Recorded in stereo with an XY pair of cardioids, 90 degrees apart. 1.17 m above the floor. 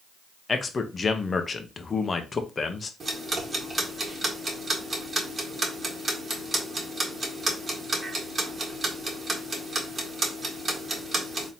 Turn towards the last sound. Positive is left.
turn(degrees=-40)